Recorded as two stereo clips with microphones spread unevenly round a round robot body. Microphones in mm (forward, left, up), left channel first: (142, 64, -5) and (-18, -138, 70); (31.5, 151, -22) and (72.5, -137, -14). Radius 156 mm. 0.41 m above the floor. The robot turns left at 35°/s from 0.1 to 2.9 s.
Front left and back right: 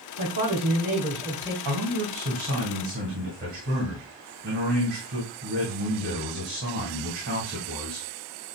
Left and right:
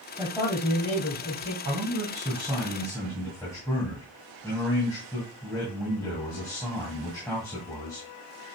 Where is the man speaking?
140° right, 2.5 m; by 8.1 s 175° left, 2.5 m.